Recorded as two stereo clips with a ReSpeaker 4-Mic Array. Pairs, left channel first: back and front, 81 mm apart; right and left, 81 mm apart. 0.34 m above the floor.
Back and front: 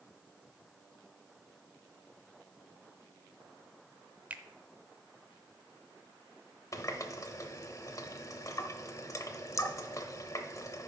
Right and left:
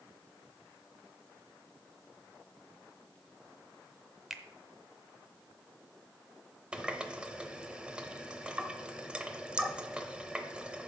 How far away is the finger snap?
About 0.7 m.